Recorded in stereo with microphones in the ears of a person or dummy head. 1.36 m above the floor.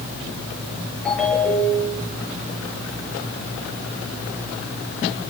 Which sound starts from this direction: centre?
A ringtone, at 1.1 s.